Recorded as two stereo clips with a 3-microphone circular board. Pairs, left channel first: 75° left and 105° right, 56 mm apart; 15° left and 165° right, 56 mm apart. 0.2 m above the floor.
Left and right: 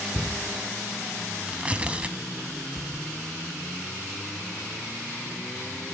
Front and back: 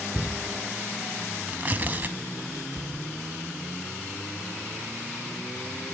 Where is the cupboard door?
95° right, 2.5 m.